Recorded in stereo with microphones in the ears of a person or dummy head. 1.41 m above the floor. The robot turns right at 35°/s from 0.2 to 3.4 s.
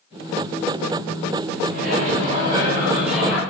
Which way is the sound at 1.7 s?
50° right.